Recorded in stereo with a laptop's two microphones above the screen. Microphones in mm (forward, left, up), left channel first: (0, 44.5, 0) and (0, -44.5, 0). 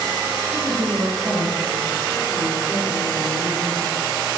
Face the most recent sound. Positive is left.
turn(degrees=-80)